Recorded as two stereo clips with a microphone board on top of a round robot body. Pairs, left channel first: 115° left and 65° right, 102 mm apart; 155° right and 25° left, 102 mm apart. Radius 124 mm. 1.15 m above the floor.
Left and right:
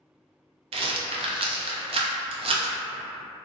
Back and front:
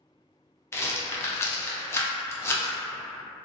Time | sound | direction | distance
0.7 | a rattle | 90° right | 0.5 m